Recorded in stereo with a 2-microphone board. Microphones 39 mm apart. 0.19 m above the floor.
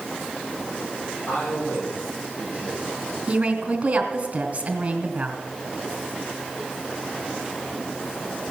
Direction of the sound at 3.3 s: 30° right (ahead or behind).